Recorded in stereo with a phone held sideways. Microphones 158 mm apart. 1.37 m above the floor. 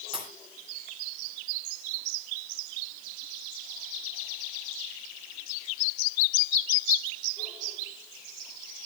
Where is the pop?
35° right (ahead or behind), 4.5 m.